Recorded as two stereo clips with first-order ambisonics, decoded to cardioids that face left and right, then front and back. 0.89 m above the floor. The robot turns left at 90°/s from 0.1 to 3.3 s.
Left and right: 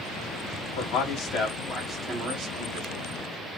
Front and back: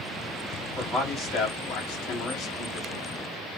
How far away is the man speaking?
About 2.0 m.